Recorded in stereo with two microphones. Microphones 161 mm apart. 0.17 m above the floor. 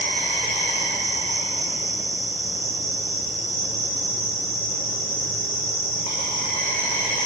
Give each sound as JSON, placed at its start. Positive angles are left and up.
{"t": 0.0, "sound": "an insect", "side_deg": 55, "distance_m": 7.0}